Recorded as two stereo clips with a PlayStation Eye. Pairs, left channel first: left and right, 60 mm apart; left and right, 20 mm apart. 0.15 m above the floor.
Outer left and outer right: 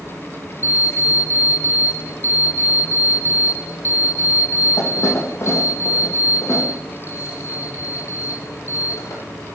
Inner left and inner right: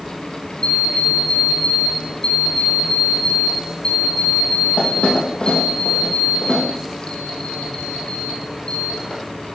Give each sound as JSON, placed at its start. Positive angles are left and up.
{"t": 0.6, "sound": "an alarm clock", "side_deg": 50, "distance_m": 2.5}